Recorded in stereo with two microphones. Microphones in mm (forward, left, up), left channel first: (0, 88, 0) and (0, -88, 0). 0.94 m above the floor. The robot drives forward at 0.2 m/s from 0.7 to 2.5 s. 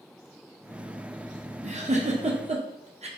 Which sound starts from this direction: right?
A giggle, at 1.6 s.